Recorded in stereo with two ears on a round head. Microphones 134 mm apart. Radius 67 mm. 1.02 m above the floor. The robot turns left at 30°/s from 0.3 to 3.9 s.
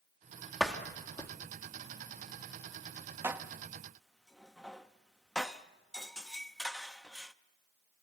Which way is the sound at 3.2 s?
15° right (ahead or behind).